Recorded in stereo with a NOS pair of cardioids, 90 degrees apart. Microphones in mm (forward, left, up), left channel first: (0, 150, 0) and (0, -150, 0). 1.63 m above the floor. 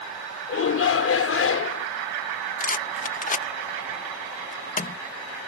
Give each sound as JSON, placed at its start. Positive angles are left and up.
{"t": 0.5, "sound": "a shout", "azimuth_deg": 45}
{"t": 2.6, "sound": "a rattle", "azimuth_deg": 25}